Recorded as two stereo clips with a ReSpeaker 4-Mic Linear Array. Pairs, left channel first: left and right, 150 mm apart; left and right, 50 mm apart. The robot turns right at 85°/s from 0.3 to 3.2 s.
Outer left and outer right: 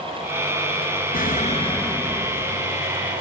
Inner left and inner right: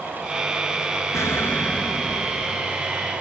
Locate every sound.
1.1 s an explosion: 100° left, 1.2 m; by 2.7 s 125° right, 1.2 m